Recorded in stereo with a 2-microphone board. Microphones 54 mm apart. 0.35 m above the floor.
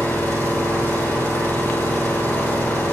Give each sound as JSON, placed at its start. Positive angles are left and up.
{"t": 0.0, "sound": "an engine running", "side_deg": 45, "distance_m": 8.5}